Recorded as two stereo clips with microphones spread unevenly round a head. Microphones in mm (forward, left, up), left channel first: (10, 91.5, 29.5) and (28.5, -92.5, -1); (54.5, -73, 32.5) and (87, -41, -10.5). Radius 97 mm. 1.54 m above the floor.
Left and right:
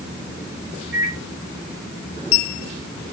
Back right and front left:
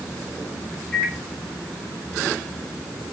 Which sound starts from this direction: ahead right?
A microwave, at 0.9 s.